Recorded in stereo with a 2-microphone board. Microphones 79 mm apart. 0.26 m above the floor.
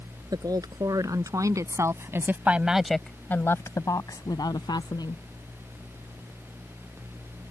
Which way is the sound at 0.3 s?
55° right (ahead or behind).